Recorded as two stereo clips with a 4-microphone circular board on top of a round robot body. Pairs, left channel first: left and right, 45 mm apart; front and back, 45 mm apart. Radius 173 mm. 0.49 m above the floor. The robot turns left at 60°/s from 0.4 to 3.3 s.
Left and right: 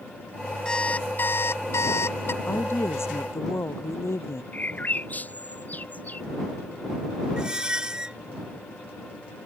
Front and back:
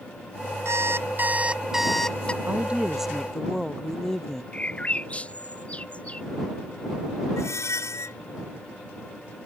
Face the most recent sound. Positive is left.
turn(degrees=-20)